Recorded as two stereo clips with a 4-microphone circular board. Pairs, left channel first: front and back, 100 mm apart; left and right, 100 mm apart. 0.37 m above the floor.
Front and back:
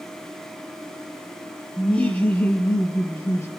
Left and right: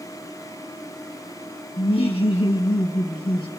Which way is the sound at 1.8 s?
80° left.